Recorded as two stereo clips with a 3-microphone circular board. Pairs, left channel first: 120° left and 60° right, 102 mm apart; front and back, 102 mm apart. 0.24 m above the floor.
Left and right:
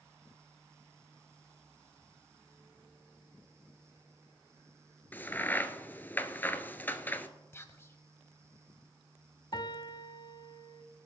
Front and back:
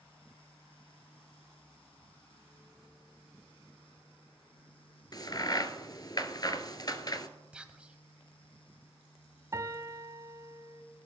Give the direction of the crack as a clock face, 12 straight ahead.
10 o'clock.